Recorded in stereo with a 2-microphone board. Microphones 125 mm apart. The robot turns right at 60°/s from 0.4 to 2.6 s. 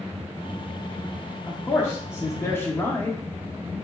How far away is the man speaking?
About 0.7 m.